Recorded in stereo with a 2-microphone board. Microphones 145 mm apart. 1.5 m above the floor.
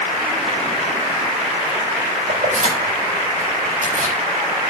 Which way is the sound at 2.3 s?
55° right (ahead or behind).